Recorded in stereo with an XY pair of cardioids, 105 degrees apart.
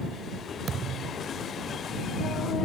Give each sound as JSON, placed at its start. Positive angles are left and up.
{"t": 0.7, "sound": "a thud", "azimuth_deg": -55}